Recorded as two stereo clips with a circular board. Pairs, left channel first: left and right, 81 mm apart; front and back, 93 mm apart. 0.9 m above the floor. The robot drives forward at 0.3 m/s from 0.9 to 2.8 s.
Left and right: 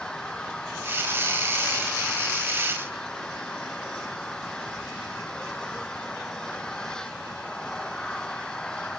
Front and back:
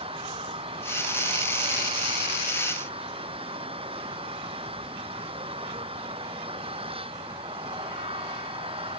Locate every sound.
0.0 s an engine running: 170° left